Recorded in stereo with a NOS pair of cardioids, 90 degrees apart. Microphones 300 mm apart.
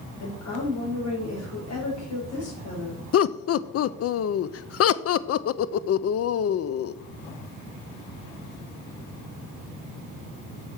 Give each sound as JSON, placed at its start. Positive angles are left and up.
{"t": 0.2, "sound": "a woman speaking", "azimuth_deg": 60, "distance_m": 5.0}
{"t": 3.1, "sound": "laughter", "azimuth_deg": 50, "distance_m": 0.6}